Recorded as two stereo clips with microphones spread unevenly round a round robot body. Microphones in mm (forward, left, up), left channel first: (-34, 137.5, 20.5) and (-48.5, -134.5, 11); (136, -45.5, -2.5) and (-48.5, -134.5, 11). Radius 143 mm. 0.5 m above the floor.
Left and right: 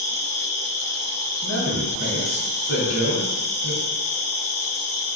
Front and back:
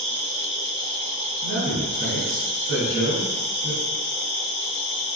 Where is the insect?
50° left, 0.8 m.